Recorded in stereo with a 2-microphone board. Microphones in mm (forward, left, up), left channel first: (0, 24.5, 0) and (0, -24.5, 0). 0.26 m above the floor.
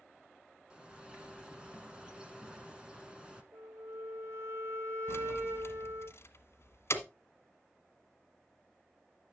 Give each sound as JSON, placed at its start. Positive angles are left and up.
{"t": 0.7, "sound": "a bird", "side_deg": -20, "distance_m": 1.5}
{"t": 3.5, "sound": "a flute", "side_deg": -65, "distance_m": 2.0}
{"t": 5.1, "sound": "keys jangling", "side_deg": 60, "distance_m": 1.5}